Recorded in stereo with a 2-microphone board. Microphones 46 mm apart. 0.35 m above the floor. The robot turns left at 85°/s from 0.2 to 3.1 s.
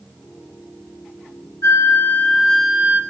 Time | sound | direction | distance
1.6 | a flute | 85° left | 4 m